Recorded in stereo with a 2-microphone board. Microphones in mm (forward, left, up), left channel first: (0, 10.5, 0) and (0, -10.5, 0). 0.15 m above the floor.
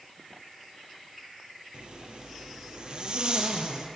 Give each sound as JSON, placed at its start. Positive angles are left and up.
{"t": 1.7, "sound": "a zipper", "side_deg": -50, "distance_m": 2.0}